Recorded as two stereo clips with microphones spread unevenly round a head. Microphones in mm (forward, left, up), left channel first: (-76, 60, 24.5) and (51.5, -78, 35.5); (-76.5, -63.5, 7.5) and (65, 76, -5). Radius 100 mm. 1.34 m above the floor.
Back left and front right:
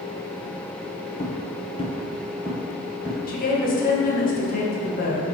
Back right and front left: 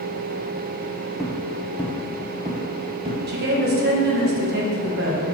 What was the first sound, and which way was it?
Footsteps, 135° left.